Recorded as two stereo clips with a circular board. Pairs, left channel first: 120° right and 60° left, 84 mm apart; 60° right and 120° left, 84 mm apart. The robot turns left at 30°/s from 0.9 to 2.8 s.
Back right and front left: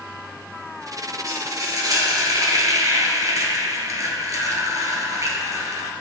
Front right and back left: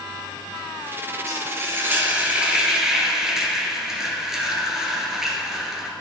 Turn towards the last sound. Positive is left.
turn(degrees=35)